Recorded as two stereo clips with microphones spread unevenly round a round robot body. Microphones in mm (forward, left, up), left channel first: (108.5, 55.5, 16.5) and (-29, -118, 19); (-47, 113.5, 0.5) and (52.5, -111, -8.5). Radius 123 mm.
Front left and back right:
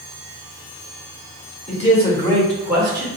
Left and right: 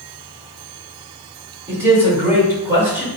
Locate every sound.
1.7 s a man speaking: 10° left, 1.6 m; by 3.1 s 130° right, 1.3 m